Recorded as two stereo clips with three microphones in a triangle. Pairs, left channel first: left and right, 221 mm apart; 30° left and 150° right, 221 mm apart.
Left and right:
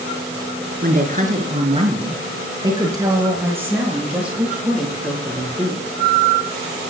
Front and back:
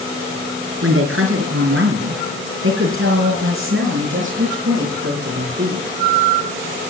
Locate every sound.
0.8 s a woman speaking: 135° right, 5 m; by 5.9 s 175° left, 9 m